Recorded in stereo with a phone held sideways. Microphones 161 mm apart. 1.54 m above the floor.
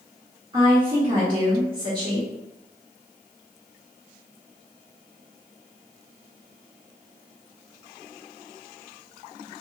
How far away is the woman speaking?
About 0.8 m.